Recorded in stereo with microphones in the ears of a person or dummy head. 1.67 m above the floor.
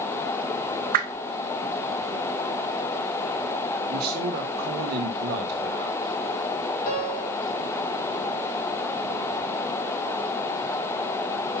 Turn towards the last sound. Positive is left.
turn(degrees=45)  # may be behind; listen again after turning